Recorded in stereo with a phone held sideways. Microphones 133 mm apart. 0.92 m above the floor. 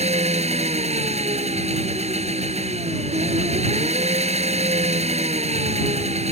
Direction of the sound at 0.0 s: 55° right (ahead or behind).